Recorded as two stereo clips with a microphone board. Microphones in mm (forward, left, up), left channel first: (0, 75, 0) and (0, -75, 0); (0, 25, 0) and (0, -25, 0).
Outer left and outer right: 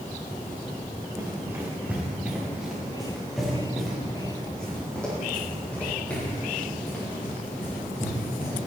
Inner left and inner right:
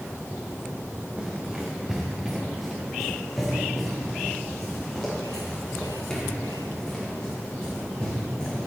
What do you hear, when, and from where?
1.2 s running footsteps: 20° right (ahead or behind), 4 m; by 8.6 s 15° left (ahead or behind), 11.5 m